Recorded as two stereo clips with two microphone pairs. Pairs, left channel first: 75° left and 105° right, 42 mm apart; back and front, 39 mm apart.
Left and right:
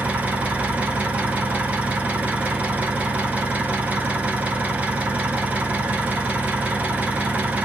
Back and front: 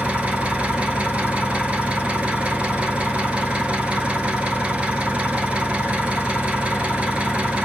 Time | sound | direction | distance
0.0 | an engine running | 55° right | 1.0 m